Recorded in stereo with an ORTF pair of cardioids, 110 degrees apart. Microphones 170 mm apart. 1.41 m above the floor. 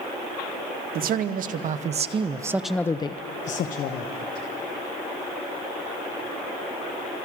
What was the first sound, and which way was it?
A man speaking, 60° right.